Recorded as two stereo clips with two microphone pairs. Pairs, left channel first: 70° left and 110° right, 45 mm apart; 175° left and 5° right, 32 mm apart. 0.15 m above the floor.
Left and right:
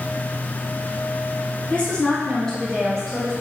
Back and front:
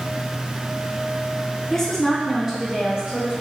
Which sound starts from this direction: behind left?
A woman speaking, at 1.7 s.